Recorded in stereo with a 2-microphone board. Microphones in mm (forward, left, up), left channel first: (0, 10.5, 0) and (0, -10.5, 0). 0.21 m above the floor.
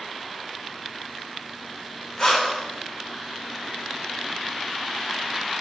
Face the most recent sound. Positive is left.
turn(degrees=30)  # may be behind; listen again after turning